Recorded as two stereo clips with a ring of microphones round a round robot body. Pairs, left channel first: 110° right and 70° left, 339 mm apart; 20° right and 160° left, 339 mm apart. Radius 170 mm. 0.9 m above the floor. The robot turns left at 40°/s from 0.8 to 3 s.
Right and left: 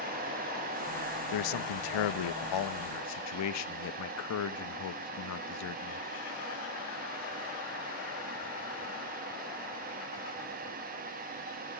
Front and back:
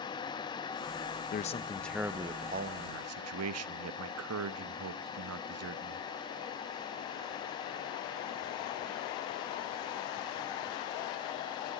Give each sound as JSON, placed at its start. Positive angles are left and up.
{"t": 1.3, "sound": "a man speaking", "azimuth_deg": -90, "distance_m": 0.7}